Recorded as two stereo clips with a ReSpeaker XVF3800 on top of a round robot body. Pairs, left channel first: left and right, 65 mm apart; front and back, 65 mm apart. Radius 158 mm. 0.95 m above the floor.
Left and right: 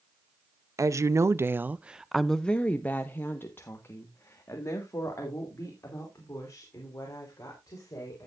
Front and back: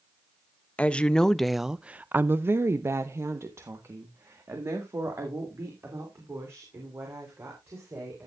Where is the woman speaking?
65° right, 0.9 m; by 8.3 s 130° left, 4 m.